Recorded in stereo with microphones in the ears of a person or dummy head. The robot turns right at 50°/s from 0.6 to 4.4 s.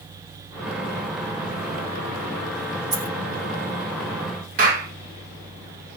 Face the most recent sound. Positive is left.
turn(degrees=-50)  # may be behind; listen again after turning